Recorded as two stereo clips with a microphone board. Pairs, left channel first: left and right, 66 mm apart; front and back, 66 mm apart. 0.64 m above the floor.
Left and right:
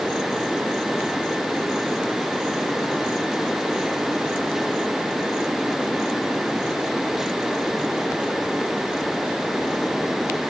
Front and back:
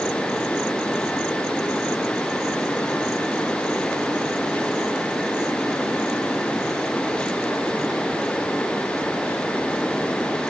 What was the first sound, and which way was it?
Only background noise.